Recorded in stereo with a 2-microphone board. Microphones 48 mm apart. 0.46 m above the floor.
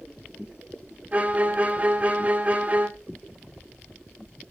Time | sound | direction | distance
1.1 | a violin | 30° right (ahead or behind) | 1.4 m